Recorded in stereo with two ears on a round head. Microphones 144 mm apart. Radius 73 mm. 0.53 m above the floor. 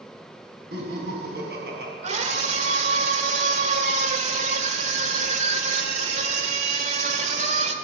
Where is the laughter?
75° right (ahead or behind), 5 m.